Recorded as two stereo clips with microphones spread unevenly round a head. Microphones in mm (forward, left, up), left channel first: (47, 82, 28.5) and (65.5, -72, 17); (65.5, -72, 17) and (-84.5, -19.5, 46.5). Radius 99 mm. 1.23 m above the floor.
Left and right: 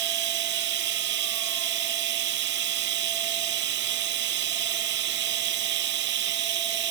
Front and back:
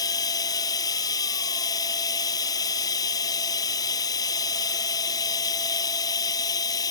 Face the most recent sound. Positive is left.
turn(degrees=-85)